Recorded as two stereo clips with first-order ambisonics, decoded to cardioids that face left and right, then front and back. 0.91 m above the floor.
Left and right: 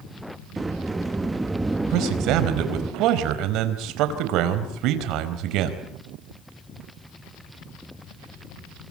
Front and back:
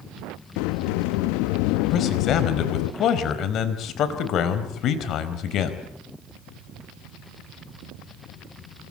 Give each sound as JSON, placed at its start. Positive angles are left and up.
{"t": 0.6, "sound": "a sliding door", "azimuth_deg": -10, "distance_m": 0.8}
{"t": 1.9, "sound": "a man speaking", "azimuth_deg": -55, "distance_m": 4.0}